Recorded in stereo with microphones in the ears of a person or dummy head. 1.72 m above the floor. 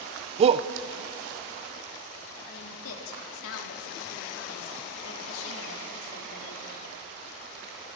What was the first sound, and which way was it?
A shout, 35° right (ahead or behind).